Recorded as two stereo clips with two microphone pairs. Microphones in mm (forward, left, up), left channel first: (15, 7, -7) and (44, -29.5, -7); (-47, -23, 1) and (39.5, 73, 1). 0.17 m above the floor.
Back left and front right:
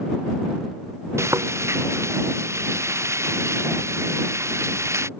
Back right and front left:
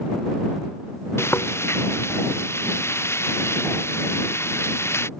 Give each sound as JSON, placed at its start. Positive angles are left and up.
{"t": 1.2, "sound": "frying", "azimuth_deg": -60}